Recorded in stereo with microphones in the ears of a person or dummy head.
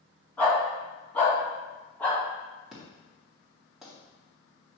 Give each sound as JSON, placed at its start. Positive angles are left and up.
{"t": 0.4, "sound": "a dog barking", "side_deg": 10, "distance_m": 3.0}
{"t": 2.7, "sound": "an explosion", "side_deg": -5, "distance_m": 2.0}